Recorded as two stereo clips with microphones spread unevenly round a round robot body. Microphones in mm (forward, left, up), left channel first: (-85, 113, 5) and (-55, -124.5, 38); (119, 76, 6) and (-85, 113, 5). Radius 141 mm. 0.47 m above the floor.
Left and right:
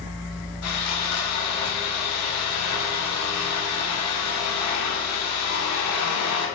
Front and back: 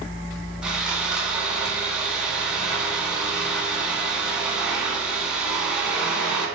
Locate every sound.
0.6 s sawing: 85° left, 1.4 m